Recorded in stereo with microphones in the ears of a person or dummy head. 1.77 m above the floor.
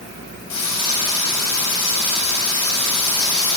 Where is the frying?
70° left (ahead or behind), 9 m.